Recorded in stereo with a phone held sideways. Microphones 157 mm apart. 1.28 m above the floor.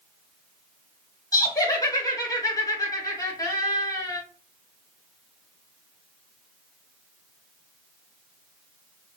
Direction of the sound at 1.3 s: 20° left (ahead or behind).